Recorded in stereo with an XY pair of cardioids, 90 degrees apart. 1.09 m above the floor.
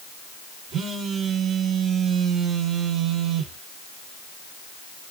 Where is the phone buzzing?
70° right, 1.4 m.